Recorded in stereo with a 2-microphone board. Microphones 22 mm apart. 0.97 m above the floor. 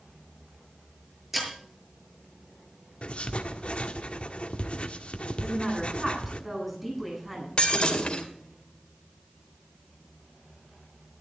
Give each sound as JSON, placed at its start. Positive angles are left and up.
{"t": 1.3, "sound": "breaking glass", "side_deg": -10, "distance_m": 6.5}
{"t": 3.0, "sound": "writing", "side_deg": 55, "distance_m": 1.3}
{"t": 5.4, "sound": "a woman speaking", "side_deg": -10, "distance_m": 9.5}
{"t": 7.6, "sound": "breaking glass", "side_deg": 40, "distance_m": 2.5}